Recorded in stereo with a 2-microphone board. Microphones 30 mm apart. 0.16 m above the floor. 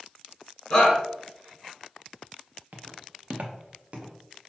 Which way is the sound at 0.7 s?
30° left (ahead or behind).